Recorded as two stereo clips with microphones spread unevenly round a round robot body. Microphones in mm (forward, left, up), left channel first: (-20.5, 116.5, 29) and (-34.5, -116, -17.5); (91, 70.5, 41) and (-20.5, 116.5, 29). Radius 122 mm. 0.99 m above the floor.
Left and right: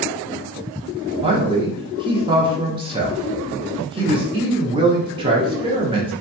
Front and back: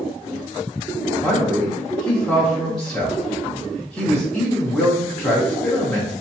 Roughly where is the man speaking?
Behind right.